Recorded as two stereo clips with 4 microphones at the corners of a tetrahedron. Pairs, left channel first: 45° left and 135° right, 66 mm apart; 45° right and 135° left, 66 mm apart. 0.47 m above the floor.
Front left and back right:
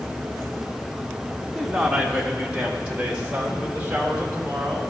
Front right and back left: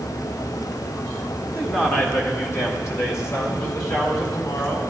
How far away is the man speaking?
About 1.2 m.